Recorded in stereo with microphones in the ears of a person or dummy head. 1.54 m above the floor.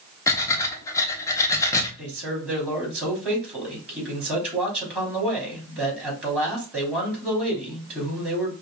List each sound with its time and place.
0.3 s breathing: 20° left (ahead or behind), 0.9 m
2.0 s a man speaking: 5° right (ahead or behind), 3 m